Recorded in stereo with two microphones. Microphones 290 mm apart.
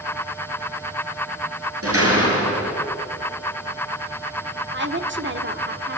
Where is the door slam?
50° right (ahead or behind), 6 m.